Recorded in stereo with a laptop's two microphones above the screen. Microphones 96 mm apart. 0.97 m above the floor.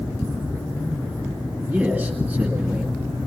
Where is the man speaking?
10° right (ahead or behind), 2 m.